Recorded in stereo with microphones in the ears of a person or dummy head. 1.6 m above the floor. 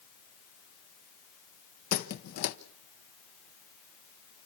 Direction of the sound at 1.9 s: 50° left (ahead or behind).